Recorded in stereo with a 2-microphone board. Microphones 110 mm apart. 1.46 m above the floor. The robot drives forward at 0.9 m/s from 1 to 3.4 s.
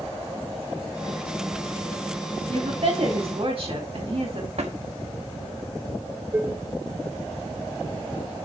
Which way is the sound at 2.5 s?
65° right (ahead or behind).